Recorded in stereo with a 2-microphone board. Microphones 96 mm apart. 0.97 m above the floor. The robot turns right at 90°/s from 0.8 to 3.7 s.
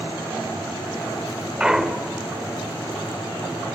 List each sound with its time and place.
1.6 s a clunk: 20° right, 0.7 m; by 2.2 s 35° left, 0.7 m